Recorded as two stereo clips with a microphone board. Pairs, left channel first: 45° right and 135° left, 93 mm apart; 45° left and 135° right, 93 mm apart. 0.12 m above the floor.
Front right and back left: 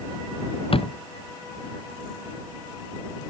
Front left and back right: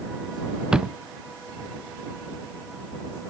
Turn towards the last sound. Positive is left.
turn(degrees=-55)